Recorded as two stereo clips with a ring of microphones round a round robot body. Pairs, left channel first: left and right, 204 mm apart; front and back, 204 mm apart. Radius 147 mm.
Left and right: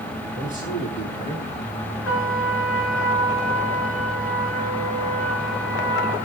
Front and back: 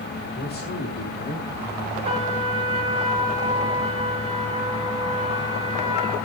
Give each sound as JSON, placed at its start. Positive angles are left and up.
{"t": 0.3, "sound": "a man speaking", "azimuth_deg": 40, "distance_m": 9.0}
{"t": 2.0, "sound": "a trumpet", "azimuth_deg": 120, "distance_m": 5.5}